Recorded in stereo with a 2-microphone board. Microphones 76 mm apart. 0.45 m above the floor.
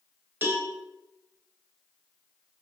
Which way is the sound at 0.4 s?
30° right (ahead or behind).